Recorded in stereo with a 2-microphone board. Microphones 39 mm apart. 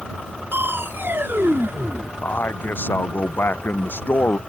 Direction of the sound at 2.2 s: 60° left (ahead or behind).